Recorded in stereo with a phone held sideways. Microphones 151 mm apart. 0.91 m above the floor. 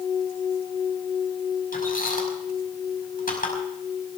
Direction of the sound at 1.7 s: 70° left (ahead or behind).